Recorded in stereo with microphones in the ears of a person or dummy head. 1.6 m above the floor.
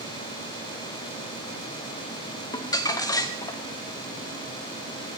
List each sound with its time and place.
2.5 s crumpling: 20° left (ahead or behind), 0.8 m